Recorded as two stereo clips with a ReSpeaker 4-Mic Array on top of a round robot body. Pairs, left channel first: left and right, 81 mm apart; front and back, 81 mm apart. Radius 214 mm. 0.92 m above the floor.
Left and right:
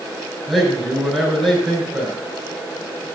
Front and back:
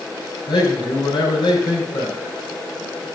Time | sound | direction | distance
0.5 | a man speaking | 5° left | 5 m